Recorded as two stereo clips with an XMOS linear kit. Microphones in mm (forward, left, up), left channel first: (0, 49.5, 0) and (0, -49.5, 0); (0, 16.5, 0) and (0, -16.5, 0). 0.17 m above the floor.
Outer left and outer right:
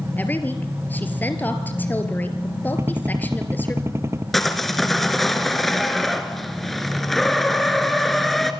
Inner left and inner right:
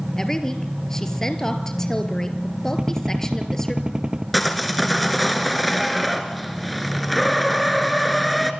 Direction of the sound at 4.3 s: Centre (ahead or behind).